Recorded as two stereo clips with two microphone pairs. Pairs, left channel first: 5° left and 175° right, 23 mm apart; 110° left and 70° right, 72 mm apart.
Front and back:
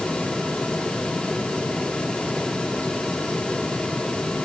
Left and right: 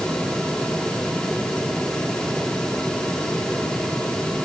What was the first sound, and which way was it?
Only background noise.